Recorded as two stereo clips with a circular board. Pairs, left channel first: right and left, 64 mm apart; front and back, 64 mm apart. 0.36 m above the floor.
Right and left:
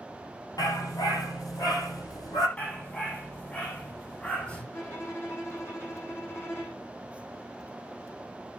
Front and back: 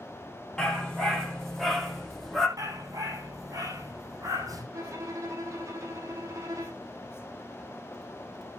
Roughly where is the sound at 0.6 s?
Right.